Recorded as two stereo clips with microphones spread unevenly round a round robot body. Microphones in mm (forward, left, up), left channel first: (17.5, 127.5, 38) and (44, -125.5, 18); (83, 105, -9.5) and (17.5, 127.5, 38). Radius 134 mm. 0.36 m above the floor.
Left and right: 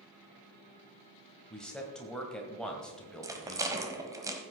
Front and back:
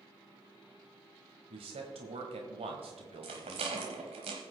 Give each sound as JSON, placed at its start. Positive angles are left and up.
{"t": 1.5, "sound": "a man speaking", "azimuth_deg": -175, "distance_m": 1.6}
{"t": 3.2, "sound": "a rattle", "azimuth_deg": -160, "distance_m": 1.1}